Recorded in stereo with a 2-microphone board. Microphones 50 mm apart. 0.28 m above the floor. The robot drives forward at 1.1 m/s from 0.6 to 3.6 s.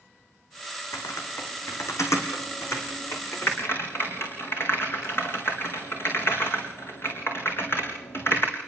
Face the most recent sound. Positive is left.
turn(degrees=50)  # may be behind; listen again after turning